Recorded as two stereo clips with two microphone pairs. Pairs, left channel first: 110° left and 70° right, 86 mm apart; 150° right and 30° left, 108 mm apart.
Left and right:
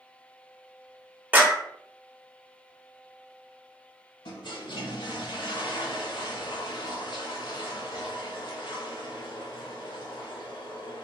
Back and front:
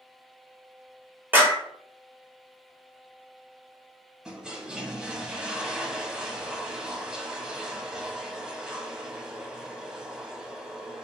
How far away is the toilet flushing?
About 0.6 m.